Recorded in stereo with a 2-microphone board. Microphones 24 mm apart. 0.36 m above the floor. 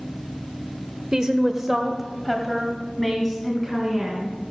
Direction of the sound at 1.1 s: 30° right (ahead or behind).